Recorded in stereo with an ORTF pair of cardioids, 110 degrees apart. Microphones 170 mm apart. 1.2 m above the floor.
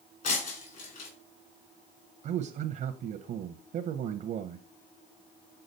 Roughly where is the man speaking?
Ahead right.